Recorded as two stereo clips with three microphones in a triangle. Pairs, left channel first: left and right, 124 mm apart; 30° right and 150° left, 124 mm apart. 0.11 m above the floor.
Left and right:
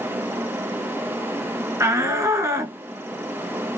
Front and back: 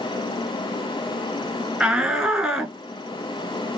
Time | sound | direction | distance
1.8 | a shout | 130° right | 1.4 m